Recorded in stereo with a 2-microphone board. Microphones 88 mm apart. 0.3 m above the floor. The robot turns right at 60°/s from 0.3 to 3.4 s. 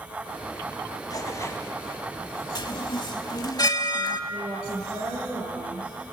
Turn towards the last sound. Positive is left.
turn(degrees=-65)  # may be behind; listen again after turning